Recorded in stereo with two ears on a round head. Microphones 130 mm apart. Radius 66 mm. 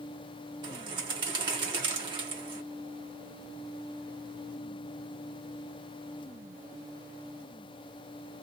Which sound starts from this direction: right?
A bird, at 0.6 s.